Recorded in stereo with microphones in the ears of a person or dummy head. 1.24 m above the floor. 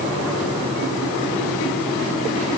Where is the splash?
No splash in this recording.